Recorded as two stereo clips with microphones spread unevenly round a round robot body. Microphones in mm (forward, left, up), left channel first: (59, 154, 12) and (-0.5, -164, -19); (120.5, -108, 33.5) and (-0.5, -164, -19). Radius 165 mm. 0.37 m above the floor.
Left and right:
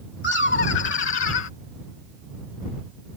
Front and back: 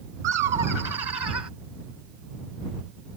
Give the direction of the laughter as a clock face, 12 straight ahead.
7 o'clock.